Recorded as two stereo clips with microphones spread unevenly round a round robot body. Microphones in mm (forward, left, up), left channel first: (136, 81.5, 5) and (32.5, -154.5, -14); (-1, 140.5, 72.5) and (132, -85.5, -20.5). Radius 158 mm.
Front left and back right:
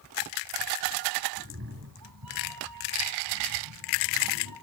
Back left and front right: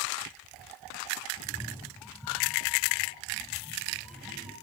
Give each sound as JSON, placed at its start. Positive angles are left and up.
{"t": 1.4, "sound": "a cat meowing", "azimuth_deg": -165, "distance_m": 0.9}